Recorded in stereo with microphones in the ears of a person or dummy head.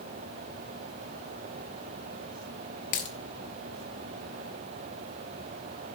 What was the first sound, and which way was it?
A dropped coin, 45° left (ahead or behind).